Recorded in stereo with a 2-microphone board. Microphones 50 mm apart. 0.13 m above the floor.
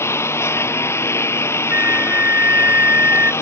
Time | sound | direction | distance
0.0 | a lawn mower | 60° left (ahead or behind) | ?
1.7 | a flute | 45° right (ahead or behind) | ?